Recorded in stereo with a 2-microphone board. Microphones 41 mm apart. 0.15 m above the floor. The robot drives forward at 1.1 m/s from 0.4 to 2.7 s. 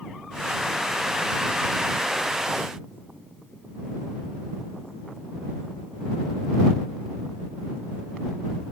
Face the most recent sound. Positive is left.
No sound to turn to.